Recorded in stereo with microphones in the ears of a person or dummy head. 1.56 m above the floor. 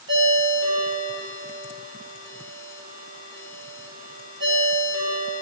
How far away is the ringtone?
About 3 m.